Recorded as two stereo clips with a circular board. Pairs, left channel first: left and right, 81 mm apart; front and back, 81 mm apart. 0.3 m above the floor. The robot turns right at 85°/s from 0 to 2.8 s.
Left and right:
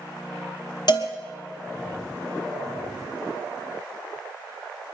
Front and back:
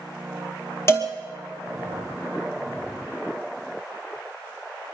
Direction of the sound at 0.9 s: 55° left.